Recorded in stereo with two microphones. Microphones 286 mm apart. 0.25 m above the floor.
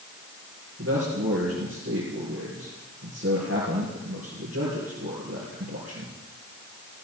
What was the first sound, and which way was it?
A man speaking, 55° right (ahead or behind).